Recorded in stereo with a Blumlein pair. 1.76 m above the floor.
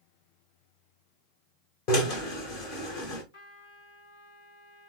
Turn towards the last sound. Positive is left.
turn(degrees=55)